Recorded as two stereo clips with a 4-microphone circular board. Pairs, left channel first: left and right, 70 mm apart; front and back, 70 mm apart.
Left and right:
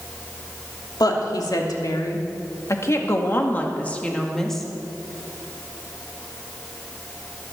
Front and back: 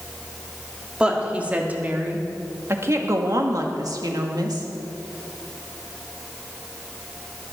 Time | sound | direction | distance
1.0 | a woman speaking | 105° left | 2.5 m